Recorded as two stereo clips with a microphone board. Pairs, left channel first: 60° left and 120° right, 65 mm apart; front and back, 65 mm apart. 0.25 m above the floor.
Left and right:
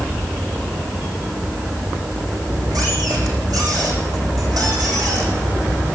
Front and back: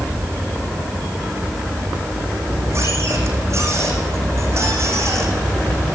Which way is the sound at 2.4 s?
140° right.